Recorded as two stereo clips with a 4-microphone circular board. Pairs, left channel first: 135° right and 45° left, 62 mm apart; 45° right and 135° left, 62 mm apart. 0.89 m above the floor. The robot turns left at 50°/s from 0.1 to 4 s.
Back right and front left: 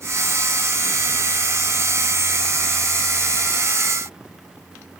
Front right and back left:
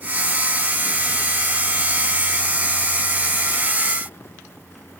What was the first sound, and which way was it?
Only background noise.